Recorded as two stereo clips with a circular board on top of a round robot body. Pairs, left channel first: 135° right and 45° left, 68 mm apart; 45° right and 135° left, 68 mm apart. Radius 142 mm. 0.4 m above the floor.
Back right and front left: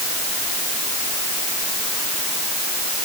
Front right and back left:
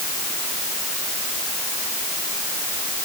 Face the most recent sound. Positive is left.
No sound to turn to.